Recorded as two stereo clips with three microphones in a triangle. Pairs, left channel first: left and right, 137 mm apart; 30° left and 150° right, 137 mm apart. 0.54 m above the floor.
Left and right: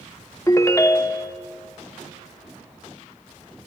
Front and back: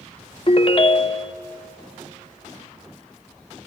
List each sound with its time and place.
0.5 s a ringtone: 35° left, 0.5 m